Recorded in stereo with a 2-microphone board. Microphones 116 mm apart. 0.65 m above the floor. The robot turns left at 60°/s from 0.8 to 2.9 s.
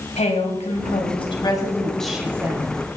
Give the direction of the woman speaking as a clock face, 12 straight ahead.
9 o'clock.